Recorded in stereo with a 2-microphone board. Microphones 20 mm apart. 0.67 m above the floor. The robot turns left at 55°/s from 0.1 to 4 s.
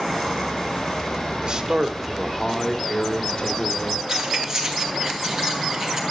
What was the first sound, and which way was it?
A man speaking, 120° right.